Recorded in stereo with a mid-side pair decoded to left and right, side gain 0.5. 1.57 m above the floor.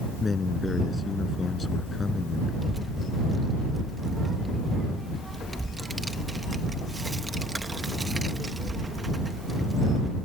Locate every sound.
0.2 s a man speaking: 30° left
2.6 s a child speaking: 15° right